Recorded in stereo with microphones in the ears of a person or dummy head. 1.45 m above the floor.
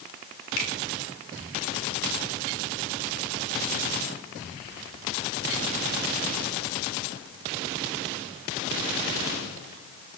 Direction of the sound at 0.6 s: 80° left.